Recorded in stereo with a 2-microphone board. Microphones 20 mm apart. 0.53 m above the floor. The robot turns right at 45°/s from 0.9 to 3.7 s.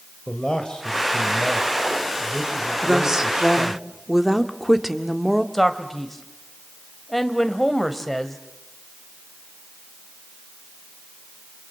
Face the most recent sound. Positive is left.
turn(degrees=10)  # may be behind; listen again after turning